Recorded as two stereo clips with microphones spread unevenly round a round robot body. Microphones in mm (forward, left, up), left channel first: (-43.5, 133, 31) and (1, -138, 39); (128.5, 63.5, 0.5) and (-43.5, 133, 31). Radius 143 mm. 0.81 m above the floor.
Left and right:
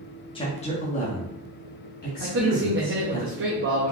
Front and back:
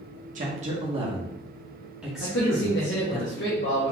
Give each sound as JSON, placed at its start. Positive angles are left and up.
{"t": 0.3, "sound": "a man speaking", "azimuth_deg": 150, "distance_m": 0.9}
{"t": 2.2, "sound": "a man speaking", "azimuth_deg": -35, "distance_m": 0.7}